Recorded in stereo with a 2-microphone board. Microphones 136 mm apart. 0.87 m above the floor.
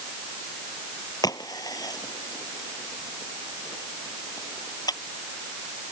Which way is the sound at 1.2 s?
30° left (ahead or behind).